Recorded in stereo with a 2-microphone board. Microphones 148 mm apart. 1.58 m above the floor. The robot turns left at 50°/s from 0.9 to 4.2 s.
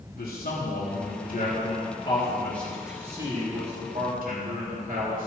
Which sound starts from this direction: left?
A man speaking, at 0.1 s.